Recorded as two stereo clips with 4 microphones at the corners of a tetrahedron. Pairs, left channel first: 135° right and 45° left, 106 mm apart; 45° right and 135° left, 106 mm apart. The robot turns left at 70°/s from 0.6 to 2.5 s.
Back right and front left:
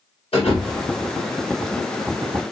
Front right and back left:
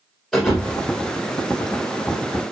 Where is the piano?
I don't hear a piano.